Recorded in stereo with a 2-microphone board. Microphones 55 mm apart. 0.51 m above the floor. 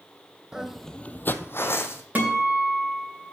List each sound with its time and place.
0.5 s footsteps: 15° right (ahead or behind), 0.7 m; by 2.0 s 45° left (ahead or behind), 1.2 m
2.1 s a guitar: 30° right (ahead or behind), 3 m